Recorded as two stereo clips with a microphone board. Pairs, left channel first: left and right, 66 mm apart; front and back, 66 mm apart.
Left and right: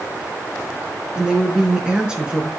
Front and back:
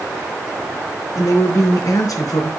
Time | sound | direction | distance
1.1 | a woman speaking | 15° right | 4 m